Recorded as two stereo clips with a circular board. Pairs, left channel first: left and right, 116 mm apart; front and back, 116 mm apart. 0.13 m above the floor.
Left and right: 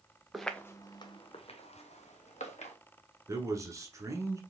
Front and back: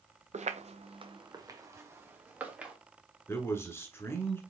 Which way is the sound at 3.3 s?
50° right.